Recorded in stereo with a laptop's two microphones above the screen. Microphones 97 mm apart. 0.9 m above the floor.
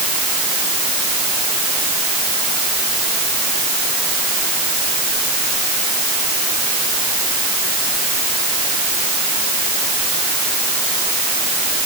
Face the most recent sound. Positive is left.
No sound to turn to.